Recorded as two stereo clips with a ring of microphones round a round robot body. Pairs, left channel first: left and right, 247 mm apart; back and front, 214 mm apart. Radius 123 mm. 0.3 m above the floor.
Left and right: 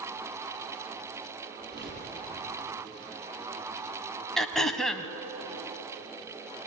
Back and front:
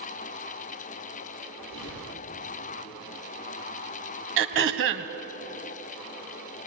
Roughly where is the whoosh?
Behind right.